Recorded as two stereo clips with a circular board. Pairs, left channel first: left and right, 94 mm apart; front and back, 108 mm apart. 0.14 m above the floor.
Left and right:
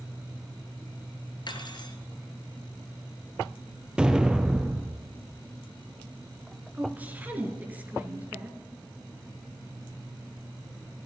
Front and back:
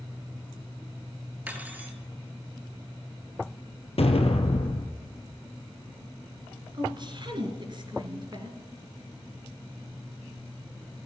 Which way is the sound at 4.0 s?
10° right.